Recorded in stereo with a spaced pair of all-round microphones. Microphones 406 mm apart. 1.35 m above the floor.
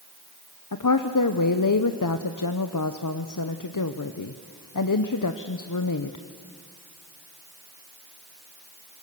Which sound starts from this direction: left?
A woman speaking, at 0.7 s.